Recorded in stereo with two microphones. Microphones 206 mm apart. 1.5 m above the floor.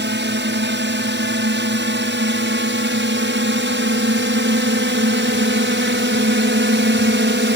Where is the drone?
65° right (ahead or behind).